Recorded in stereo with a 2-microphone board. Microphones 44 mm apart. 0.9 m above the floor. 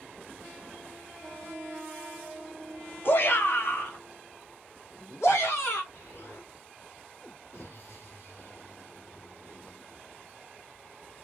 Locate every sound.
3.0 s a shout: 50° left (ahead or behind), 1.1 m; by 5.8 s 70° left (ahead or behind), 3 m
5.9 s an explosion: 60° left (ahead or behind), 1.8 m